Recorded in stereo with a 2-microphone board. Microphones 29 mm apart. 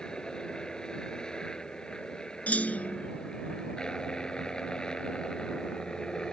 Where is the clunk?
50° left (ahead or behind).